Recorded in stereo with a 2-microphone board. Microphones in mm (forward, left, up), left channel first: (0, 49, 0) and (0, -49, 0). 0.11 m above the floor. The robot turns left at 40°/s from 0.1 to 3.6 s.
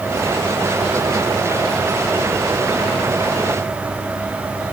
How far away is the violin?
No violin in this recording.